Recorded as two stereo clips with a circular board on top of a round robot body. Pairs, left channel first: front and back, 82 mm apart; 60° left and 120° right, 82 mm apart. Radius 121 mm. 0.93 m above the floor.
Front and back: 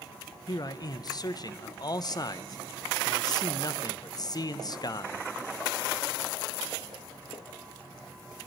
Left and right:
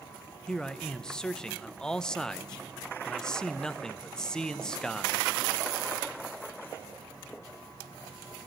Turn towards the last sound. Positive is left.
turn(degrees=-20)